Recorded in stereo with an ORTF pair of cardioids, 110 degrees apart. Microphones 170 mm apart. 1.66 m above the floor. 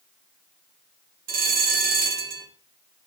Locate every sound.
1.3 s a bell: 60° right, 3 m